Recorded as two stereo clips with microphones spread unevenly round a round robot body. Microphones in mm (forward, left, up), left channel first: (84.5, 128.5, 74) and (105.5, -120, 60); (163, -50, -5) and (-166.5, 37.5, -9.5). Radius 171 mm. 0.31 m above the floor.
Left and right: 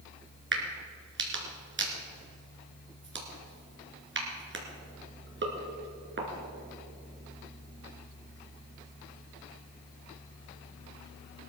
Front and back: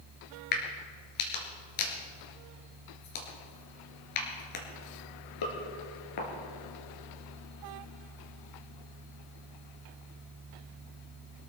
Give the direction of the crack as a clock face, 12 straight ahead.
1 o'clock.